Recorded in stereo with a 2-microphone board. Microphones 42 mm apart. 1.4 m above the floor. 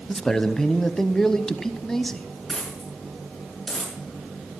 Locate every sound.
0.1 s a man speaking: 10° left (ahead or behind), 0.8 m
2.5 s a dropped coin: 5° left (ahead or behind), 6 m